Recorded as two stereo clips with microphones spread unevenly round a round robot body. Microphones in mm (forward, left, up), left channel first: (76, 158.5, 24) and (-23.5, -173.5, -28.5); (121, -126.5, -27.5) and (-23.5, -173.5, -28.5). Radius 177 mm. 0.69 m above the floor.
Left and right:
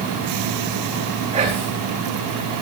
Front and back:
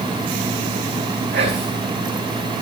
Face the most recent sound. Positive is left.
turn(degrees=180)